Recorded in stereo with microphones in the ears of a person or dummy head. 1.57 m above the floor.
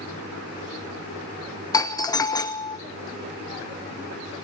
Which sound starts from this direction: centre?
A doorbell, at 1.7 s.